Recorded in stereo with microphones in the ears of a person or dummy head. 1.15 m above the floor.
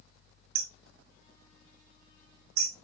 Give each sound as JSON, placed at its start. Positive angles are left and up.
{"t": 0.6, "sound": "hammering", "side_deg": -65, "distance_m": 1.0}